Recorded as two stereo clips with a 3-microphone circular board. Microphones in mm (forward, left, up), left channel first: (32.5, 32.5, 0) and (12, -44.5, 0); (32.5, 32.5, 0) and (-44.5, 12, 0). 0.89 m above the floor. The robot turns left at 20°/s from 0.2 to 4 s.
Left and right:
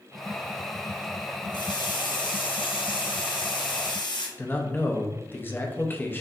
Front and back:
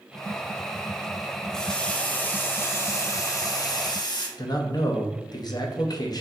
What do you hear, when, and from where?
1.5 s a running tap: 100° left, 0.8 m; by 4.3 s 50° left, 0.8 m
4.4 s a man speaking: 15° left, 0.6 m